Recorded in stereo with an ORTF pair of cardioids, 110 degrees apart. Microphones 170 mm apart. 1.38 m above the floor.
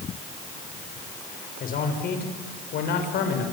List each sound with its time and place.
1.6 s a man speaking: 55° left, 5.5 m; by 3.4 s 75° left, 6 m